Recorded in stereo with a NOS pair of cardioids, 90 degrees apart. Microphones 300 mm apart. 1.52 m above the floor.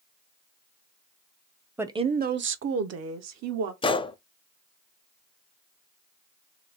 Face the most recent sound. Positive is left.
turn(degrees=20)